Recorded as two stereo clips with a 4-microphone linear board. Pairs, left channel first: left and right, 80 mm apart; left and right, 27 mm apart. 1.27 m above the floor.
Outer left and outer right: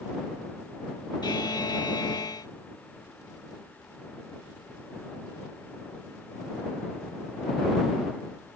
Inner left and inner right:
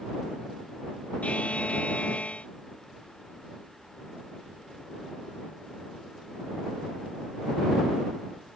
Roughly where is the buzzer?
Left.